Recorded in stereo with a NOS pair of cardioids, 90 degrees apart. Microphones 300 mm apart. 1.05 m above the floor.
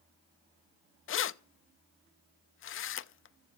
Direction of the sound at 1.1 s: 45° left.